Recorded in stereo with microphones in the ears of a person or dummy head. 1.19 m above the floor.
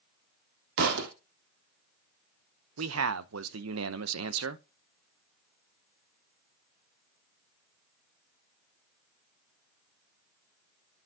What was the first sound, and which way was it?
A thud, 65° right (ahead or behind).